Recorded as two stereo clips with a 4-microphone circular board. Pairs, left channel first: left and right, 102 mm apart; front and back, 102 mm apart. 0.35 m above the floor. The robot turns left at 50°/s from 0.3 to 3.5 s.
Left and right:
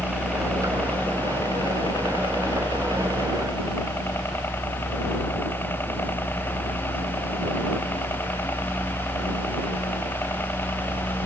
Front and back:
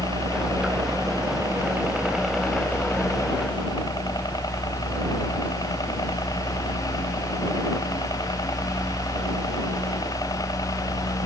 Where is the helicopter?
170° right; by 11.3 s 30° left.